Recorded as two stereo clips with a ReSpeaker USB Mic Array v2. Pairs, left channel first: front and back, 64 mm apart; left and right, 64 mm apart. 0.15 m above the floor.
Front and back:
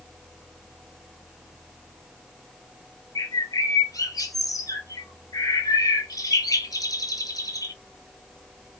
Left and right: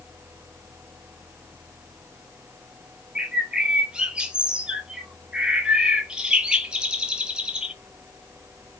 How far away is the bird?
About 0.5 m.